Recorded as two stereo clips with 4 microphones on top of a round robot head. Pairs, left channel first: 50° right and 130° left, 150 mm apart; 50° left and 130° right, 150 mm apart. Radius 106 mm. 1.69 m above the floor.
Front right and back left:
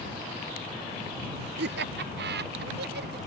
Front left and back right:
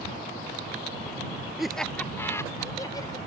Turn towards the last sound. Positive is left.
turn(degrees=115)